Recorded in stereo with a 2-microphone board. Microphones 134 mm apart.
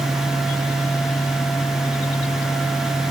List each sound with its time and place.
Only background noise.